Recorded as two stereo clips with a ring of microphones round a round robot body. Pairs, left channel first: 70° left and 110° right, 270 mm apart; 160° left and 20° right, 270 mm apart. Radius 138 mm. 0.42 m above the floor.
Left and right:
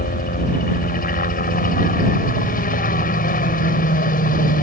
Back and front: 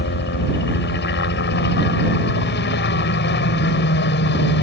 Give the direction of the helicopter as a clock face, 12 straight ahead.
8 o'clock.